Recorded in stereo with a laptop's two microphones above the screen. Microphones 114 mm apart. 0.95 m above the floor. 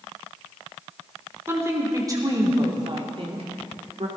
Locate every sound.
1.5 s a woman speaking: 20° right (ahead or behind), 3.5 m; by 4.1 s 70° right (ahead or behind), 2.5 m